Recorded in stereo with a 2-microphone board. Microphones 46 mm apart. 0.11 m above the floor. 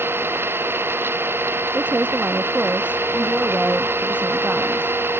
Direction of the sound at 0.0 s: 55° right (ahead or behind).